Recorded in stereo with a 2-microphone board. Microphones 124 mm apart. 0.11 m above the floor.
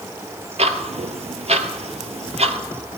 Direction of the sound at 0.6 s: 60° right (ahead or behind).